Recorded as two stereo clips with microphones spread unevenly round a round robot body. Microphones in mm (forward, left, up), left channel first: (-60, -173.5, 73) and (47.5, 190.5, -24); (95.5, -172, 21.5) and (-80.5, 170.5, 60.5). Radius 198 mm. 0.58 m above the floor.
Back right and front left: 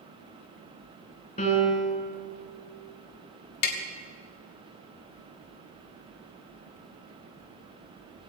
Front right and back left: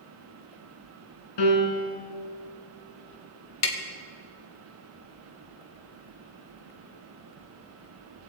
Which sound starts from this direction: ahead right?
A piano, at 1.4 s.